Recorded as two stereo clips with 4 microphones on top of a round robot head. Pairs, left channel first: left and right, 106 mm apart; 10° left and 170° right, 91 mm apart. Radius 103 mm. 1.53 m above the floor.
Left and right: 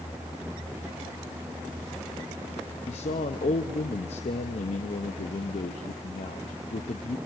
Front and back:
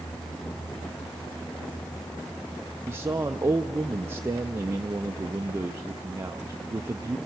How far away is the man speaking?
About 0.6 m.